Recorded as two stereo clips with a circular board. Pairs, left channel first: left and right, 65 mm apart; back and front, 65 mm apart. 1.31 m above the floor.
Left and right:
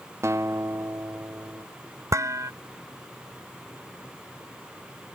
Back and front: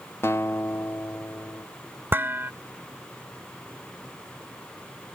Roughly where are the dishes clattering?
Ahead right.